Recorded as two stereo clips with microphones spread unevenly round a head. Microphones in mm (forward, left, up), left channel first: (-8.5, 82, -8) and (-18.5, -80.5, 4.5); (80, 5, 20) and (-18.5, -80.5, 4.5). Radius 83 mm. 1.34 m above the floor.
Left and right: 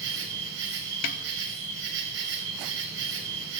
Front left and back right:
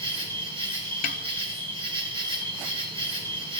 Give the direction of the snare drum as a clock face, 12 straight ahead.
10 o'clock.